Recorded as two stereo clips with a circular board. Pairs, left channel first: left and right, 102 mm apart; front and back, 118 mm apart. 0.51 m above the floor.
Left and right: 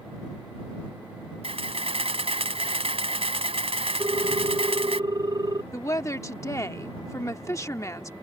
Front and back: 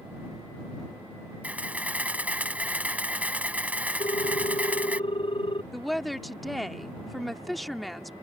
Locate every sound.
1.4 s a camera shutter: 105° right
4.0 s a ringtone: 40° right
5.7 s a woman speaking: 90° left